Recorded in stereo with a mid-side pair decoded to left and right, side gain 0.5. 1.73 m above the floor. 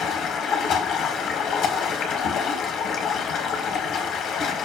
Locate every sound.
0.0 s running water: 70° left, 1.3 m